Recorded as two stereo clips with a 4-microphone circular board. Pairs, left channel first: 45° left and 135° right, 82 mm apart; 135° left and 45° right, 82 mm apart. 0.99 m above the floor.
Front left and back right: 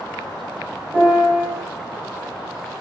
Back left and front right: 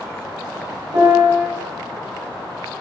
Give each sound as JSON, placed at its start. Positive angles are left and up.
{"t": 0.9, "sound": "a piano", "azimuth_deg": -65, "distance_m": 1.8}